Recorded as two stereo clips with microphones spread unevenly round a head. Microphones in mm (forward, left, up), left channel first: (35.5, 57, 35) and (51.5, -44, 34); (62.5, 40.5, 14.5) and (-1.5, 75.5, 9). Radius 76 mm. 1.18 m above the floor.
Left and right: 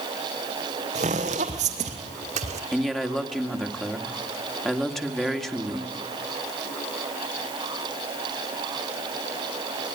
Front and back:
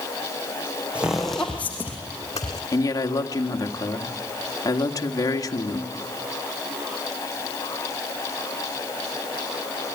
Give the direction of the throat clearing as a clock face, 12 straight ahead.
No throat clearing in this recording.